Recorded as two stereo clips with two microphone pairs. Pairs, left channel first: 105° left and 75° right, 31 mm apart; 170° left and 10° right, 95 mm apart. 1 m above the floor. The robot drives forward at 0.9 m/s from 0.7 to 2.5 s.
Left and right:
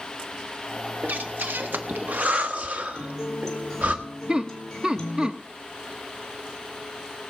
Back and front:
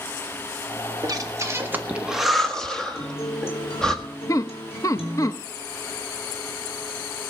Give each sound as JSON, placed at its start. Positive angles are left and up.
{"t": 1.0, "sound": "breathing", "azimuth_deg": -55, "distance_m": 1.7}
{"t": 3.0, "sound": "a guitar", "azimuth_deg": 180, "distance_m": 3.5}
{"t": 4.3, "sound": "laughter", "azimuth_deg": -135, "distance_m": 0.7}